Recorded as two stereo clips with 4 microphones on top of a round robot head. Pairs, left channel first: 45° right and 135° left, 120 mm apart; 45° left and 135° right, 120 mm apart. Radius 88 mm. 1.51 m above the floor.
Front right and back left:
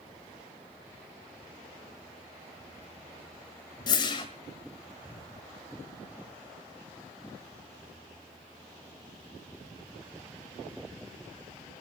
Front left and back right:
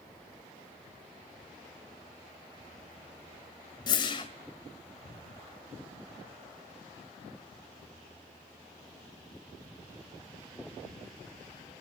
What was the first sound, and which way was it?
A whoosh, straight ahead.